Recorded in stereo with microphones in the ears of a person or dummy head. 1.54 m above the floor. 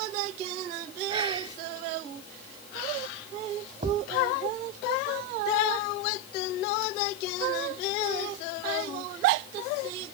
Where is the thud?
35° right (ahead or behind).